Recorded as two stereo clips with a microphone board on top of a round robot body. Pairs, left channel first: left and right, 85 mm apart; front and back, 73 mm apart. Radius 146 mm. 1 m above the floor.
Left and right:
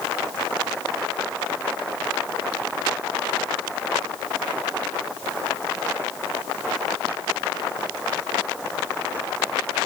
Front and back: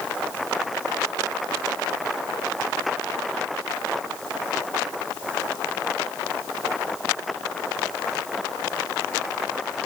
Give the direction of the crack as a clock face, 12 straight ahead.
No crack in this recording.